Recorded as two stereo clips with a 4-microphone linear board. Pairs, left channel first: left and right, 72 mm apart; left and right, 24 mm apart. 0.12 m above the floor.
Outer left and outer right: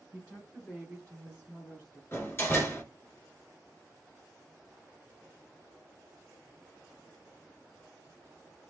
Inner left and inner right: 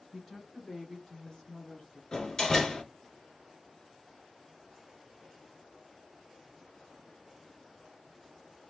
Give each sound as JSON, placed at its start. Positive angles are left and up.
{"t": 0.1, "sound": "a woman speaking", "side_deg": -5, "distance_m": 1.3}
{"t": 2.1, "sound": "a door slam", "side_deg": 35, "distance_m": 1.2}